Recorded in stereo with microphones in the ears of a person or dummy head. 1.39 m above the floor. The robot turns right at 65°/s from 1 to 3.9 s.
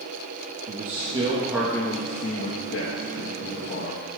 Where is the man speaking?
40° right, 1.4 m; by 4.1 s 150° left, 1.4 m.